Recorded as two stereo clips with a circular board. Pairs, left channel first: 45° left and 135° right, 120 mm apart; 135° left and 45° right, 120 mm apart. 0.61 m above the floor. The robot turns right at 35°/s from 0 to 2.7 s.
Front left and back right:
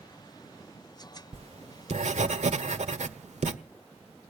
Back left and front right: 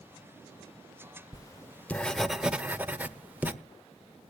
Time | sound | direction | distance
1.3 | writing | 170° right | 1.2 m